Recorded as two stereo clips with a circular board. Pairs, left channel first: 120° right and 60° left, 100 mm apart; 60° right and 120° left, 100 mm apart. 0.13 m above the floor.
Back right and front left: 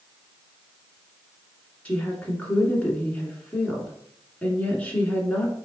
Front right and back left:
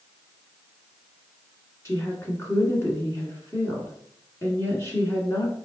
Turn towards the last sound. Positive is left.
turn(degrees=-60)